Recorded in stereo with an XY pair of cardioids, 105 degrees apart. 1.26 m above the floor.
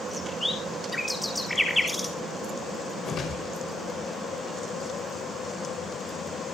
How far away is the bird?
About 4 m.